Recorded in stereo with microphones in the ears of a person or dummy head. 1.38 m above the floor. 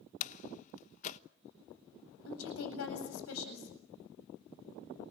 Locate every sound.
0.2 s a door slam: 45° left (ahead or behind), 1.1 m
2.2 s a woman speaking: 90° left, 8 m